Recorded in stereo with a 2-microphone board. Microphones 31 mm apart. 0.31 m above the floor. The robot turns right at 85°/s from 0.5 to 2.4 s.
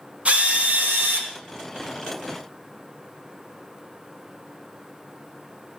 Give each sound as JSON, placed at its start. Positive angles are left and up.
{"t": 0.2, "sound": "a drill", "azimuth_deg": -135, "distance_m": 3.0}